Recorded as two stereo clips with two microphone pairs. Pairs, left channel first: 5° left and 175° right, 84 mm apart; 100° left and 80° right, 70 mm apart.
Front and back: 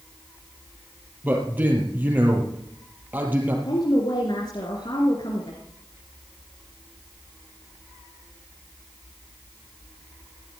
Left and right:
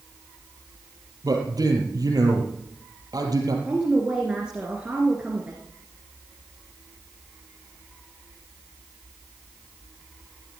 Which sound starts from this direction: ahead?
A woman speaking, at 3.6 s.